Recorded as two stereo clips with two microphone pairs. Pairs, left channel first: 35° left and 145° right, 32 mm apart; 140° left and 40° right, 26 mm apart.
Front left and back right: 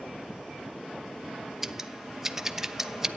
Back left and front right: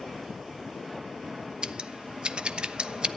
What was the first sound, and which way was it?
Scissors, 80° right.